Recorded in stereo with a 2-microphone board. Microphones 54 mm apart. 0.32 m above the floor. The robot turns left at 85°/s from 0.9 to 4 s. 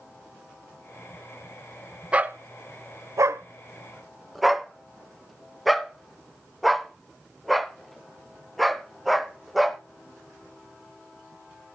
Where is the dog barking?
20° right (ahead or behind), 0.7 m; by 9.8 s centre (ahead or behind), 0.7 m.